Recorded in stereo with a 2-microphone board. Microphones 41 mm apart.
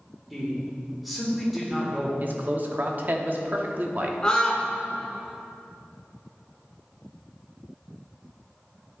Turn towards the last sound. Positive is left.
turn(degrees=20)  # may be behind; listen again after turning